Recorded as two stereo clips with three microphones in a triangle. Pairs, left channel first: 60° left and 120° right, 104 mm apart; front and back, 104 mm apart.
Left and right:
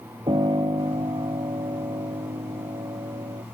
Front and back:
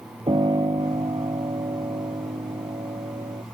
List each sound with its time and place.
0.3 s a piano: 150° right